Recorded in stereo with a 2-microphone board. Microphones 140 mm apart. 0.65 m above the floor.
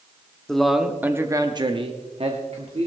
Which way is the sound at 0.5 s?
5° left (ahead or behind).